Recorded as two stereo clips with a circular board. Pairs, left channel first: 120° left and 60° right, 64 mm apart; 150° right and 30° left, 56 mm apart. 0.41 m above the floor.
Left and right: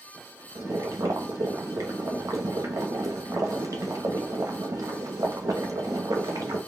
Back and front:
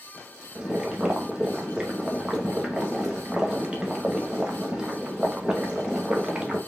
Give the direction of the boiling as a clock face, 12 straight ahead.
1 o'clock.